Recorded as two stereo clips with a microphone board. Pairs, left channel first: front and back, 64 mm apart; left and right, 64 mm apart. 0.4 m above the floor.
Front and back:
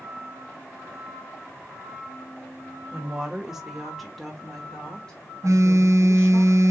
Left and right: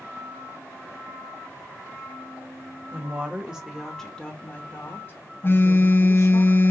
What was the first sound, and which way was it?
A woman speaking, 120° right.